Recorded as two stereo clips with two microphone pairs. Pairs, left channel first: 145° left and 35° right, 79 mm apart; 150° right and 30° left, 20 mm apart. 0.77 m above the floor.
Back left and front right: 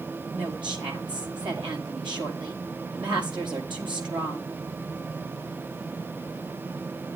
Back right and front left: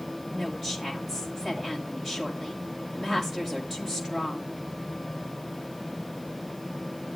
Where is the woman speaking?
50° right, 6 m.